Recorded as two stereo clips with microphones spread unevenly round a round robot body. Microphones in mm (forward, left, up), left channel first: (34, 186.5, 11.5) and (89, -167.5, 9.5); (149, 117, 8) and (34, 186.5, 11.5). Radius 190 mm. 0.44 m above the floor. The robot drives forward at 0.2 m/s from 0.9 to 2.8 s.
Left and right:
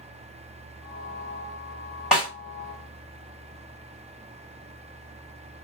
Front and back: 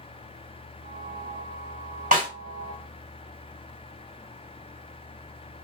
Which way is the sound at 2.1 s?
170° right.